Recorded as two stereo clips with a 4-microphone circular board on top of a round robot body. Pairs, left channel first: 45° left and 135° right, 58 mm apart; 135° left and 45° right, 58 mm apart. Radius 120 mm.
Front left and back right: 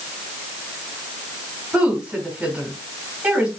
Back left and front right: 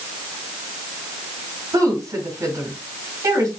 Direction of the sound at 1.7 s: 70° right.